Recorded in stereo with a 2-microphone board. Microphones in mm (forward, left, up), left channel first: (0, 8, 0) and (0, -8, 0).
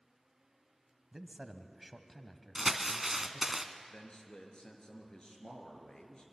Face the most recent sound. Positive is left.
turn(degrees=55)  # may be behind; listen again after turning